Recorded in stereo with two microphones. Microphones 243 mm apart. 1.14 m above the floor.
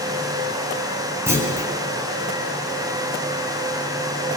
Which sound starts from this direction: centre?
A clunk, at 1.3 s.